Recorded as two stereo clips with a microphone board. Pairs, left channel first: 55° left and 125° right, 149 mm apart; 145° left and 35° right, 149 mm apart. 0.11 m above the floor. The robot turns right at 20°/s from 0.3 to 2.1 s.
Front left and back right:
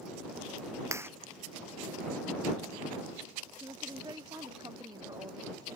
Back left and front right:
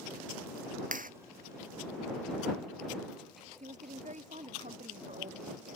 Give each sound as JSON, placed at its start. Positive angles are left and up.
{"t": 0.9, "sound": "a clap", "azimuth_deg": -55}
{"t": 3.6, "sound": "a woman speaking", "azimuth_deg": -65}